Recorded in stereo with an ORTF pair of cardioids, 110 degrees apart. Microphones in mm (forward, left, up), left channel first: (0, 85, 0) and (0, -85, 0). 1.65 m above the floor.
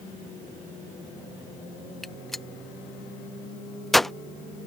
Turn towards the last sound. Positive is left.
turn(degrees=0)